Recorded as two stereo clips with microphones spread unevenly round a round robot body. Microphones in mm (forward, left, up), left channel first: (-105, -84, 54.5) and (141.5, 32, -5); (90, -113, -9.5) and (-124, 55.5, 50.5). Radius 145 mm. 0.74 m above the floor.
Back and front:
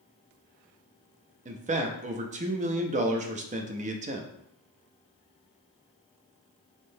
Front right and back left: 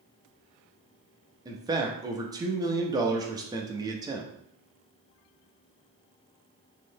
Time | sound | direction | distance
1.4 | a man speaking | 60° left | 0.5 m